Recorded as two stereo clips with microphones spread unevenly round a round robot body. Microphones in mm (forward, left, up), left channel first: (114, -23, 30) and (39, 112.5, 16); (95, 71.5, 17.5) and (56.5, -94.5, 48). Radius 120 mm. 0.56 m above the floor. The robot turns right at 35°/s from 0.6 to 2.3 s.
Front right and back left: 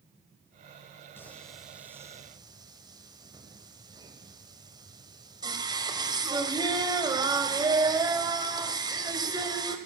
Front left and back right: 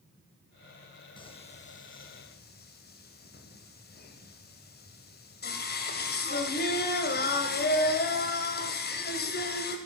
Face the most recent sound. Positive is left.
turn(degrees=55)